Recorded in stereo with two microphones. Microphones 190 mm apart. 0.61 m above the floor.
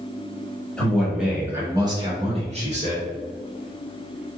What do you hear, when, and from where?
0.8 s a man speaking: 5° left (ahead or behind), 1.4 m; by 3.1 s 40° right (ahead or behind), 1.6 m